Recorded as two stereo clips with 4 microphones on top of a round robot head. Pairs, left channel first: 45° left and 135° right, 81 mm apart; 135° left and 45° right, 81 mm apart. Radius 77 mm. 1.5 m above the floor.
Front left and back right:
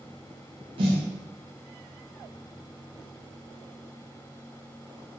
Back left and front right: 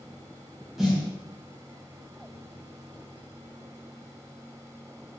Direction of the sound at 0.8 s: 130° right.